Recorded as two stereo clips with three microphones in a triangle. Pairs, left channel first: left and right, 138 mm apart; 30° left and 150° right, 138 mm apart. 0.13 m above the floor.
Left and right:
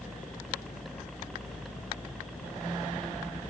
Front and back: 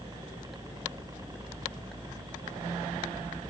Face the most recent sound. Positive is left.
turn(degrees=175)